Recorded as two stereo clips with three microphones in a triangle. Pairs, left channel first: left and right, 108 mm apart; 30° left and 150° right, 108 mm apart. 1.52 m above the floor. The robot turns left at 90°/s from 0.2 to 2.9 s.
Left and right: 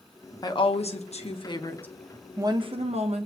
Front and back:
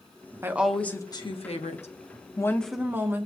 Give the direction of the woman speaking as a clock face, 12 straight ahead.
7 o'clock.